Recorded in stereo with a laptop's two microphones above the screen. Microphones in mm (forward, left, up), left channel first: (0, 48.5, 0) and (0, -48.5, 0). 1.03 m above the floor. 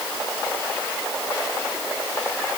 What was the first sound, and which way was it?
Only background noise.